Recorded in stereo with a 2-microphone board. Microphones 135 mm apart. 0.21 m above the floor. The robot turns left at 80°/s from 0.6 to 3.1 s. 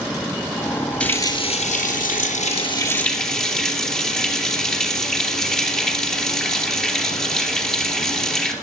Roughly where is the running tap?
Behind.